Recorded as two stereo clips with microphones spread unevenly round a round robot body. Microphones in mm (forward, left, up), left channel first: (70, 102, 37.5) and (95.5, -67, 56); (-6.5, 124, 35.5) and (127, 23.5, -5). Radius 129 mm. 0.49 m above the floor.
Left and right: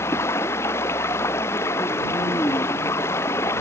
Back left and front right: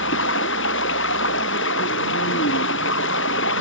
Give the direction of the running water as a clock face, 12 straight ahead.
6 o'clock.